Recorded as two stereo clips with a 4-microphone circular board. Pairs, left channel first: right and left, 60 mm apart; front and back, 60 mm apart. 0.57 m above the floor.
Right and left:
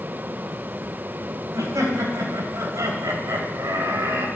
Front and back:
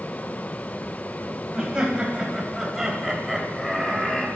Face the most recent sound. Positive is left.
turn(degrees=85)